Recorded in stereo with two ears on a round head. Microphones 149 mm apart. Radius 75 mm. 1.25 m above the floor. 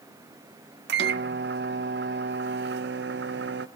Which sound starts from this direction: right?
A microwave, at 0.9 s.